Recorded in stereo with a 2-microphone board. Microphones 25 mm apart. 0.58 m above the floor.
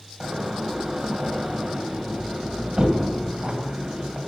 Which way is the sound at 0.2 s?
45° right (ahead or behind).